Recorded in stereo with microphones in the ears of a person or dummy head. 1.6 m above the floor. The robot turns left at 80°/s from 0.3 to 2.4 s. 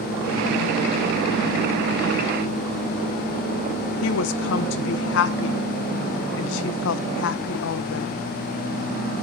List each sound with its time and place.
4.0 s a woman speaking: 70° left (ahead or behind), 1.1 m